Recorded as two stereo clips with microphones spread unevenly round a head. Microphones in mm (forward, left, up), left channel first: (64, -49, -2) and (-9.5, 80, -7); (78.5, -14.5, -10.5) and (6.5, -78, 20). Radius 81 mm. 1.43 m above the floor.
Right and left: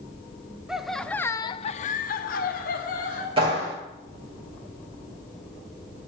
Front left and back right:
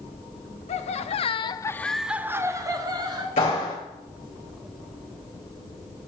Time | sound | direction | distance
0.7 | laughter | 35° left | 0.9 m
3.4 | a clap | 65° left | 5.5 m